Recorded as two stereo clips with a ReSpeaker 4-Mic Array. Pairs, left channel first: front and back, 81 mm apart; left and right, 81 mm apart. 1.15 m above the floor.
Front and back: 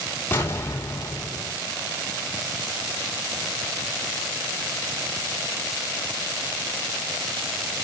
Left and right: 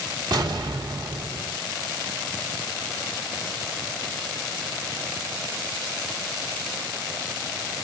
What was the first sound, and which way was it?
An explosion, 60° right.